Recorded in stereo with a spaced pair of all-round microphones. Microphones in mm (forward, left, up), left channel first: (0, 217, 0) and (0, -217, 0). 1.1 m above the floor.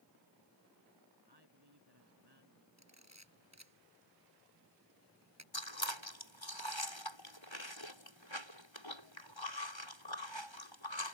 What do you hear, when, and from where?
1.3 s a man speaking: 60° right (ahead or behind); by 2.7 s 65° right (ahead or behind)
2.8 s a camera shutter: 35° right (ahead or behind)
5.5 s chewing: 80° left